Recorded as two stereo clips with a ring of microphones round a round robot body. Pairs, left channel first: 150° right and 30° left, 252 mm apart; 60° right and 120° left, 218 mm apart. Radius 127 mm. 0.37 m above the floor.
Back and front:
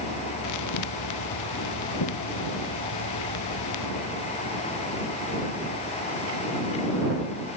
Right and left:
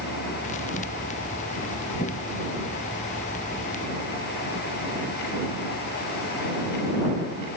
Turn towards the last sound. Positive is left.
turn(degrees=-125)